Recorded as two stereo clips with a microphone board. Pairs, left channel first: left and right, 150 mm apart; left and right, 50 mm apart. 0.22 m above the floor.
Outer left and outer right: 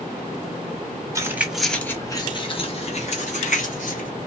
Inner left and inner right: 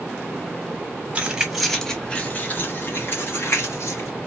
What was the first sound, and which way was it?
Keys jangling, 20° right (ahead or behind).